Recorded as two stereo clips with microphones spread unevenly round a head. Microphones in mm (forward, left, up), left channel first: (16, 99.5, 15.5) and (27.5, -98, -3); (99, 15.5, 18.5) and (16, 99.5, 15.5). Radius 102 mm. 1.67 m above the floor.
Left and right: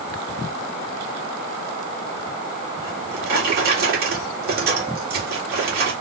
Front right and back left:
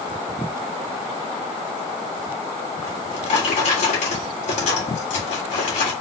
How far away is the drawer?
About 1.8 m.